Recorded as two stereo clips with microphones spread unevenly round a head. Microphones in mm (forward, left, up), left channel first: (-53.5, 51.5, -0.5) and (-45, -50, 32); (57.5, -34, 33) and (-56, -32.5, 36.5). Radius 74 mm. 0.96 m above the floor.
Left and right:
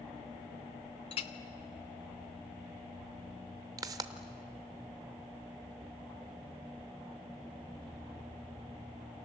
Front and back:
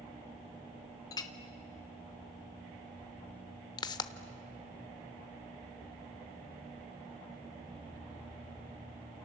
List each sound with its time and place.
1.1 s a clink: 60° left, 1.0 m
3.8 s a pop: 50° right, 0.8 m